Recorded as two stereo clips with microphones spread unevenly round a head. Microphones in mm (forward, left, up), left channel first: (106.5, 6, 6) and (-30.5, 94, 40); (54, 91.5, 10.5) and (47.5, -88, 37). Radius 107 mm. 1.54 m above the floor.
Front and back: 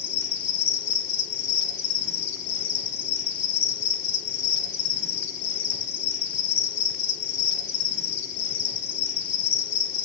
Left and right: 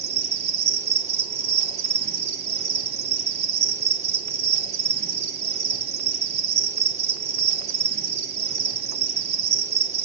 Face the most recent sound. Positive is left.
turn(degrees=-55)